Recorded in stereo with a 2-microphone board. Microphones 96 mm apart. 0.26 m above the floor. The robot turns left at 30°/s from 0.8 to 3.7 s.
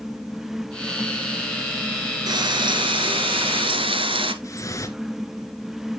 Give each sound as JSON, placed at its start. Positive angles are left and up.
{"t": 2.3, "sound": "frying", "azimuth_deg": -55, "distance_m": 0.9}
{"t": 4.4, "sound": "dripping", "side_deg": 35, "distance_m": 1.0}